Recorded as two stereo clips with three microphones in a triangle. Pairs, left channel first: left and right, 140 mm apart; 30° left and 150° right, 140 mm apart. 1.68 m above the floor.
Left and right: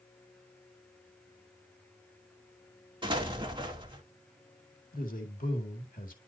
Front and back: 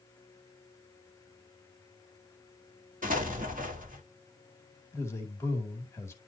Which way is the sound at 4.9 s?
100° left.